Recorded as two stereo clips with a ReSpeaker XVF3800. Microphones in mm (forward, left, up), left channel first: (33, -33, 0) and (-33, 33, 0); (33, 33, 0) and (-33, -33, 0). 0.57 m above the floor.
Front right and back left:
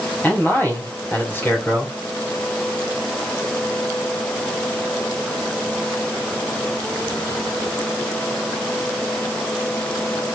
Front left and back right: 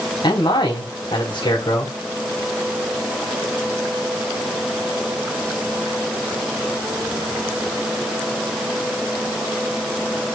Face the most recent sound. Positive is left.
turn(degrees=20)